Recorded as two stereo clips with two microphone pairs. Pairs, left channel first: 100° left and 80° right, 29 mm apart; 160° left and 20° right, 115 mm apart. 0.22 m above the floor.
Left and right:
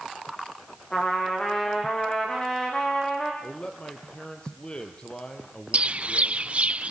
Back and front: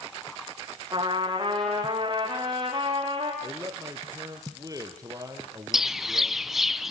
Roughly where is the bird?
Right.